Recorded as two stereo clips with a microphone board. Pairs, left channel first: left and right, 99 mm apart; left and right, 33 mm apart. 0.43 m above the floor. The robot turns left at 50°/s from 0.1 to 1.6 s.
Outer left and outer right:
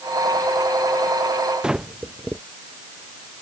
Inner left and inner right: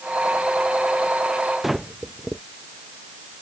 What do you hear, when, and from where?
1.6 s breathing: 5° right (ahead or behind)